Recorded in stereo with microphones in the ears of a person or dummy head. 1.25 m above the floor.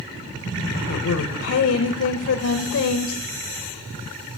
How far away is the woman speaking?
About 0.7 m.